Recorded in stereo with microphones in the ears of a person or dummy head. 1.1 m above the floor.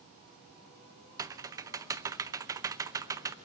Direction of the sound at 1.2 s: 20° right (ahead or behind).